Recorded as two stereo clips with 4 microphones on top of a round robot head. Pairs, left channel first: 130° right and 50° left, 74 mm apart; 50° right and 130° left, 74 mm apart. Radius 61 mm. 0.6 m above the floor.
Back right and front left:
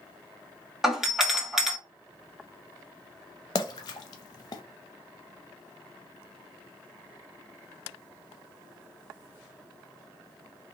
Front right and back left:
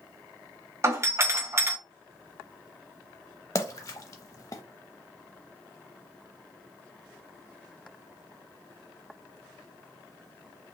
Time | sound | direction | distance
0.8 | a doorbell | 130° left | 1.4 m
3.5 | a splash | 95° right | 0.5 m